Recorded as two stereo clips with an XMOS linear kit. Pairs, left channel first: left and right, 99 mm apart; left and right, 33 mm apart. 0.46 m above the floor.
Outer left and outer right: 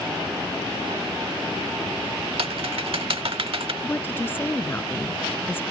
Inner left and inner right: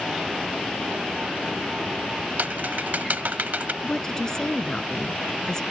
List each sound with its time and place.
2.4 s typing on a keyboard: 70° right (ahead or behind)
3.8 s a woman speaking: 20° left (ahead or behind)